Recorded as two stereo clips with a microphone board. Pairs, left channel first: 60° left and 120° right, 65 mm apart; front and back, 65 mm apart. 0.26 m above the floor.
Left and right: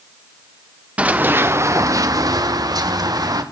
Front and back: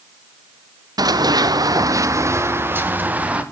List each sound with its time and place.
1.0 s running footsteps: 170° left, 2 m; by 3.4 s 110° right, 3.5 m